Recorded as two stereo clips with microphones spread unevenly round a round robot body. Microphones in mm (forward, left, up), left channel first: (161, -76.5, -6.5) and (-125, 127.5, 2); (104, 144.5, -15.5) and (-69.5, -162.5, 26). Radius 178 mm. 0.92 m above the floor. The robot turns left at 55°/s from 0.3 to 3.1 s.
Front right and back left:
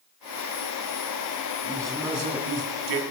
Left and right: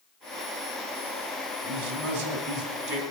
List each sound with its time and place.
1.6 s a man speaking: 110° right, 3 m; by 3.0 s 175° left, 3 m